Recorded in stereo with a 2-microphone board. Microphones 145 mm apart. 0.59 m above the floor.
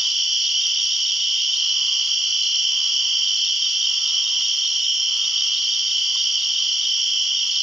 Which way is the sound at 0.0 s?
Centre (ahead or behind).